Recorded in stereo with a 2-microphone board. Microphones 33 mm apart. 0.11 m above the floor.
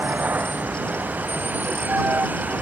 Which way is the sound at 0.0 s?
70° right (ahead or behind).